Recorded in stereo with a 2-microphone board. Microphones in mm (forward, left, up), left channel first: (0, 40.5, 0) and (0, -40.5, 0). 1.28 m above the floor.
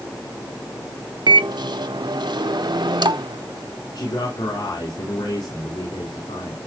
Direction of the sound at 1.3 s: 65° right (ahead or behind).